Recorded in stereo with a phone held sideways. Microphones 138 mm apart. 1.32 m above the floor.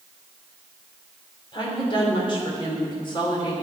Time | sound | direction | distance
1.5 | a woman speaking | 35° left (ahead or behind) | 3.5 m